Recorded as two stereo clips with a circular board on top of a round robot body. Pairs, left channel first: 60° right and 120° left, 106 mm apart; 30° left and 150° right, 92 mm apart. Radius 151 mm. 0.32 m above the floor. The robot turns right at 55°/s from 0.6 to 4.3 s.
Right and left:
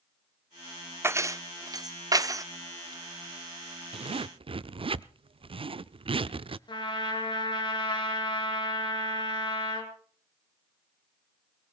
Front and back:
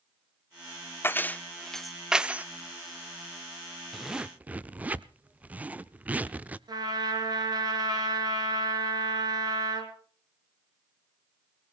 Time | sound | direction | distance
1.0 | keys jangling | 75° left | 0.7 m
3.9 | a zipper | 120° left | 0.5 m
6.7 | a trumpet | 105° right | 2.5 m